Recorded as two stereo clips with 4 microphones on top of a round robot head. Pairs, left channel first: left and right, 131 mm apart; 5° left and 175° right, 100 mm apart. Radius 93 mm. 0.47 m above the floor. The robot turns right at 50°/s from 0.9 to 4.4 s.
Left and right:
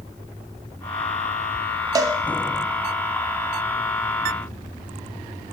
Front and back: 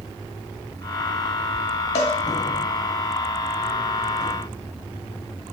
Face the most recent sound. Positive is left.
turn(degrees=90)